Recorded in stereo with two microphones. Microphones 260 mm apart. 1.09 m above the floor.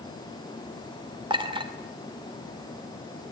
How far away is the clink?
About 2.5 m.